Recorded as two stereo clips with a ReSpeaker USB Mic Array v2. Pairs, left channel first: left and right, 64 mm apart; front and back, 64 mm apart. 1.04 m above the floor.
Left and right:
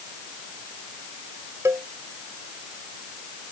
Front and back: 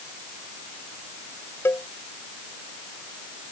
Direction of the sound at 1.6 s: 50° right.